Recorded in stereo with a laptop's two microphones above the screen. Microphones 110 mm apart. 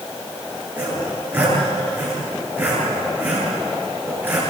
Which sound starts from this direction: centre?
Sawing, at 0.8 s.